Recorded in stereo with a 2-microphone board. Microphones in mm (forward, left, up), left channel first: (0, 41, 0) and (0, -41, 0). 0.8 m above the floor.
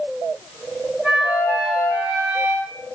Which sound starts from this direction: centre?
A flute, at 1.0 s.